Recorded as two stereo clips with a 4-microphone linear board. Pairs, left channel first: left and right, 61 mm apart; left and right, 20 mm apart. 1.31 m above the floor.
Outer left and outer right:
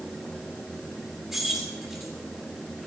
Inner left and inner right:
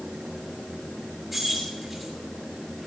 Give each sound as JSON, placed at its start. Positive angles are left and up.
{"t": 1.3, "sound": "keys jangling", "side_deg": -10, "distance_m": 6.5}